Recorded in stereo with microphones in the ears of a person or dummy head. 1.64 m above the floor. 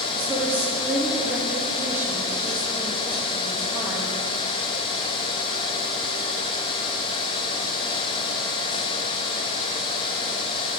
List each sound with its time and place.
0.1 s a woman speaking: 10° right (ahead or behind), 2 m